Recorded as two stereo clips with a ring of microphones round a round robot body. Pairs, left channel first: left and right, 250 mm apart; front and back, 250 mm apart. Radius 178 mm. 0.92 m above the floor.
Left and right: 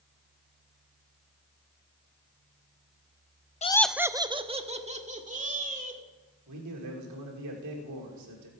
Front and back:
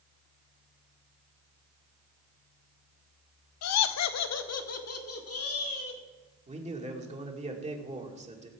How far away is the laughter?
About 0.5 m.